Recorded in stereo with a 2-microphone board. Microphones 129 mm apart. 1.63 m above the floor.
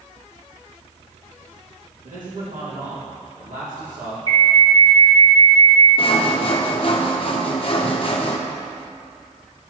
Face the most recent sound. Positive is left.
turn(degrees=45)  # may be behind; listen again after turning